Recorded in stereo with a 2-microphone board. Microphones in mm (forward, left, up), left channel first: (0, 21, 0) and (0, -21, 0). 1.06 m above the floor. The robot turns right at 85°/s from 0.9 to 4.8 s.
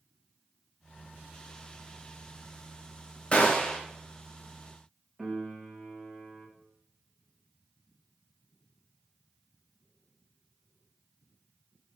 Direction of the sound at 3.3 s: 105° left.